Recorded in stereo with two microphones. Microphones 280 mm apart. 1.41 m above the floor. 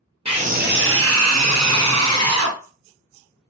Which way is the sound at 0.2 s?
20° right (ahead or behind).